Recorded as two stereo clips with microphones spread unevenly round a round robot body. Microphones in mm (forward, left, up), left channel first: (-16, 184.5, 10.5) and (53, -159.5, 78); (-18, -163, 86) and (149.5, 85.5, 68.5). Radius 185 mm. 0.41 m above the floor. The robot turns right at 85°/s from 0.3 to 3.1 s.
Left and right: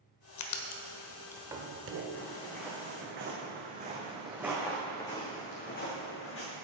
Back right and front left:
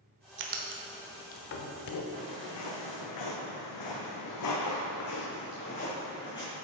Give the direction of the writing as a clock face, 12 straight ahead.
9 o'clock.